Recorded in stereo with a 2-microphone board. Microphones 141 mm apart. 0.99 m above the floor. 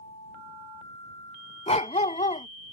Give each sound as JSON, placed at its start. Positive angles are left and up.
{"t": 1.7, "sound": "a dog barking", "side_deg": 50}